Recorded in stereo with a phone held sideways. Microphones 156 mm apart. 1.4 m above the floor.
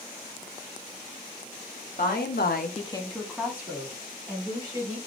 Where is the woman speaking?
65° left (ahead or behind), 0.9 m; by 5.0 s 25° right (ahead or behind), 2.5 m.